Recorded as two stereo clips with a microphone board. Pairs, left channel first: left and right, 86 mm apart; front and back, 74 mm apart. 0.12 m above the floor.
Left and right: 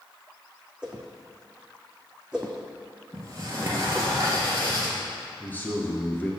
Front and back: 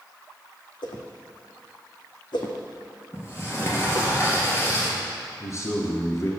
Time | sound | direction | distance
0.8 | a whoosh | 10° right | 1.1 m
3.1 | a sliding door | 50° right | 2 m
5.4 | a man speaking | 30° left | 1.6 m